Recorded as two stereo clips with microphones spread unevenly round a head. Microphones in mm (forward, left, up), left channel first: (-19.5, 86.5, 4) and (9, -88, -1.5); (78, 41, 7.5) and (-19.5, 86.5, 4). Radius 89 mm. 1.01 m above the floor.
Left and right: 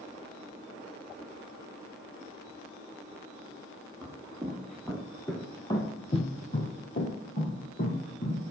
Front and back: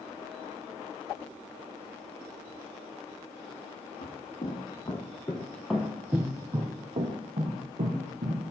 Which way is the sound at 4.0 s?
Straight ahead.